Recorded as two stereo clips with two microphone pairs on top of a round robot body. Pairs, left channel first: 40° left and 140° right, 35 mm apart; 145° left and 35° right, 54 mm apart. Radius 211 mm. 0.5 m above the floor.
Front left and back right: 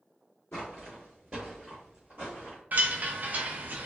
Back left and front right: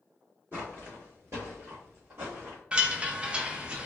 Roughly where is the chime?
Right.